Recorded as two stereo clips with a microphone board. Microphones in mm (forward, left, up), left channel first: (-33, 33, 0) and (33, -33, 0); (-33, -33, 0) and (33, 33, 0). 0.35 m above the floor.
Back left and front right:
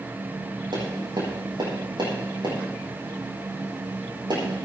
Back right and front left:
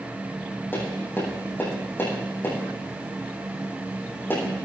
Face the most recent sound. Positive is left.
turn(degrees=-70)